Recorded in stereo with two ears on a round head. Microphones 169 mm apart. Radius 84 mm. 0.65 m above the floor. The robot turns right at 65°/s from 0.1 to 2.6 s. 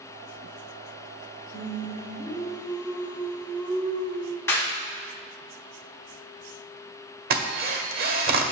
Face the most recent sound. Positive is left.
turn(degrees=-50)  # may be behind; listen again after turning